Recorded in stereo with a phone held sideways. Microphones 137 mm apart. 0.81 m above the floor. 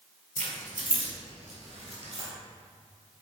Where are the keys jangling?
85° right, 1.7 m; by 2.3 s 55° right (ahead or behind), 3 m.